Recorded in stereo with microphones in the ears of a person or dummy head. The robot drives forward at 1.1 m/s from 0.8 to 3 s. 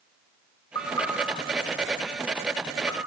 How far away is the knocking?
About 3.5 m.